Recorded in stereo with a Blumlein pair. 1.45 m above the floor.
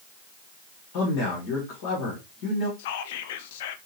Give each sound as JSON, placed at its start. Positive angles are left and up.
{"t": 0.9, "sound": "a man speaking", "azimuth_deg": 45, "distance_m": 1.7}
{"t": 2.8, "sound": "whispering", "azimuth_deg": 55, "distance_m": 0.5}